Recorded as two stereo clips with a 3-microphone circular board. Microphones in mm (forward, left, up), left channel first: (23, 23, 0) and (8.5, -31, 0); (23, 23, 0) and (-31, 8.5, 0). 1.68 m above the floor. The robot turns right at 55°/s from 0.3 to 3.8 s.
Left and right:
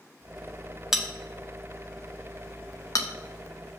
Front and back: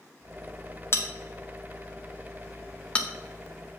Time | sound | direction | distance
0.9 | a bell | 20° right | 0.9 m